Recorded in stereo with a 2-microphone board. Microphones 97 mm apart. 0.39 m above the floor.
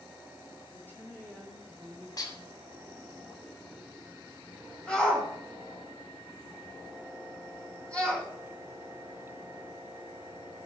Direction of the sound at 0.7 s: 20° left (ahead or behind).